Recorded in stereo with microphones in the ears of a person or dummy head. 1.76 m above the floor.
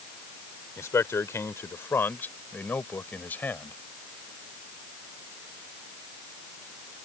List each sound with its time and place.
0.8 s a man speaking: 10° left (ahead or behind); by 3.8 s 5° left (ahead or behind)